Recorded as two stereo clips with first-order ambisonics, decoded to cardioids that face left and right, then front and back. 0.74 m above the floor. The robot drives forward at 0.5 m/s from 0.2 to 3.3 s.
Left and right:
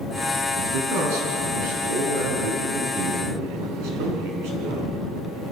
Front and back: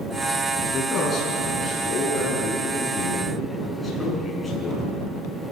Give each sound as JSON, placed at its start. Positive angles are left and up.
{"t": 0.5, "sound": "a man speaking", "azimuth_deg": -75, "distance_m": 7.5}